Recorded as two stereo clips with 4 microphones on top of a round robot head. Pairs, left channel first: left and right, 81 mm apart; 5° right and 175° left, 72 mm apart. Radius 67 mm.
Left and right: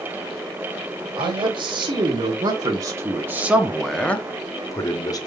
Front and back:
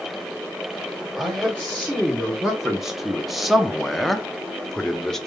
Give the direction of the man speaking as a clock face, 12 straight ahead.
3 o'clock.